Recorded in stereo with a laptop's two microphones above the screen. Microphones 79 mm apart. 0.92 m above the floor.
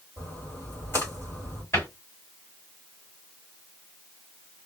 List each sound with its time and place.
0.2 s a splash: 30° left (ahead or behind), 1.8 m
1.7 s a cupboard door: 35° left (ahead or behind), 1.9 m